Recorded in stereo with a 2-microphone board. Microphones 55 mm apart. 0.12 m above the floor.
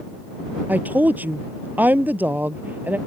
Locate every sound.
0.7 s a woman speaking: 35° right (ahead or behind)